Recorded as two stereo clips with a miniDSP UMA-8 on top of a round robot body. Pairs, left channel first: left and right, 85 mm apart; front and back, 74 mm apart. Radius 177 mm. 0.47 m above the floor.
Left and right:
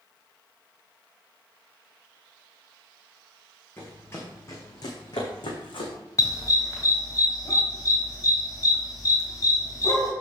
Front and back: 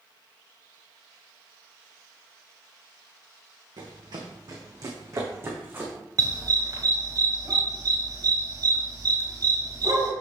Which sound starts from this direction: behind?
Running footsteps, at 3.8 s.